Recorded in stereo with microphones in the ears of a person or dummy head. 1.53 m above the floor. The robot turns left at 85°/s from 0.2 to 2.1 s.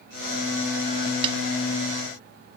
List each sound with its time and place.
1.2 s a snare drum: 25° right (ahead or behind); by 1.4 s 35° right (ahead or behind)